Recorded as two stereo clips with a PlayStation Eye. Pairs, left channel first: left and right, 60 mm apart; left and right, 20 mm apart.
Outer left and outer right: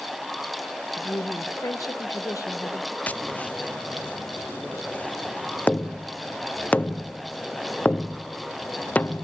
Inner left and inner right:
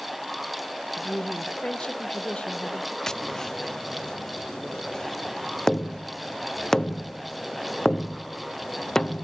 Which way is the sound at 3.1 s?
25° left (ahead or behind).